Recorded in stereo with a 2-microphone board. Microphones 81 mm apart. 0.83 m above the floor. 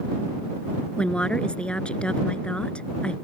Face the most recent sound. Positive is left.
turn(degrees=15)  # may be behind; listen again after turning